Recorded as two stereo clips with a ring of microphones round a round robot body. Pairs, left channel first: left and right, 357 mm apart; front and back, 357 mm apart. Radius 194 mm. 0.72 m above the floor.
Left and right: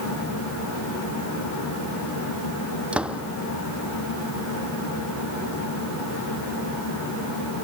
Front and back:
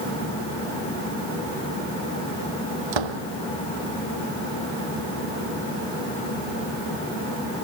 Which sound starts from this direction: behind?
A door slam, at 2.9 s.